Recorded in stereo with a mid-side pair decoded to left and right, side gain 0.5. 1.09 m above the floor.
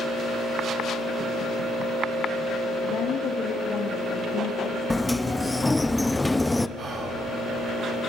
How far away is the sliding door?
About 0.7 m.